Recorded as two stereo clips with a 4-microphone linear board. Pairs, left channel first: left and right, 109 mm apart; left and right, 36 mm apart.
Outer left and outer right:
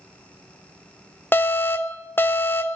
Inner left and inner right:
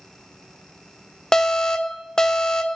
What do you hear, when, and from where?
1.3 s an alarm: 20° left (ahead or behind), 0.5 m